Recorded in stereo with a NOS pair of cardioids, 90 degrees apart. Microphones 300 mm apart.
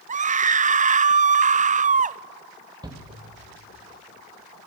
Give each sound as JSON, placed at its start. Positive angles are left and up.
{"t": 0.1, "sound": "a scream", "azimuth_deg": -25, "distance_m": 0.7}
{"t": 2.8, "sound": "a shout", "azimuth_deg": -15, "distance_m": 2.5}